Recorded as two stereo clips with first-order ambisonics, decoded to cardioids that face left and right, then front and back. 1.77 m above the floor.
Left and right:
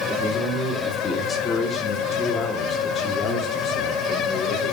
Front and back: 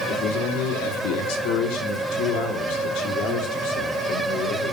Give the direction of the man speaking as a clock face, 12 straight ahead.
12 o'clock.